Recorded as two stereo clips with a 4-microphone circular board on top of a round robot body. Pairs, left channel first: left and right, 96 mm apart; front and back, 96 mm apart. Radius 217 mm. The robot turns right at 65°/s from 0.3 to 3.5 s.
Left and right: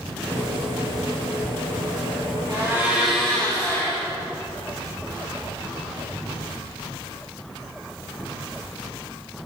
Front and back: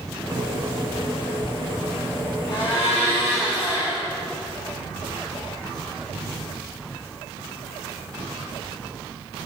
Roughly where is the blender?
Ahead right.